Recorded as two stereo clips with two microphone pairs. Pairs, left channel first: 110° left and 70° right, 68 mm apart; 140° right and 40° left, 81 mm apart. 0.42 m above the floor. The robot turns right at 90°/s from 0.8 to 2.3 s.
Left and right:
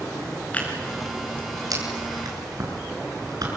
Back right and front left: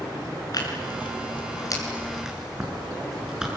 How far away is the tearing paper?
About 6.5 m.